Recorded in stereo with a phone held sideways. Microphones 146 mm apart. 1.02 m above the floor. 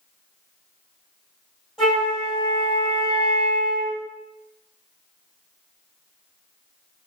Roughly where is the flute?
Centre.